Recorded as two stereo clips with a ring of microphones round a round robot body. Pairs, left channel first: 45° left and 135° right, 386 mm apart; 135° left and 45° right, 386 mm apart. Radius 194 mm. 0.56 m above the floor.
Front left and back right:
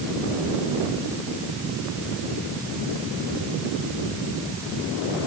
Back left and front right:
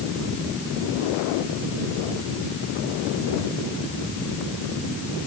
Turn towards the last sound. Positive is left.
No sound to turn to.